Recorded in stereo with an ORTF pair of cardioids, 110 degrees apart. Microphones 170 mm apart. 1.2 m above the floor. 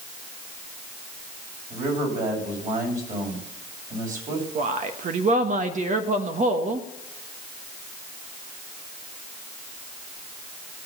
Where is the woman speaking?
45° right, 1.2 m.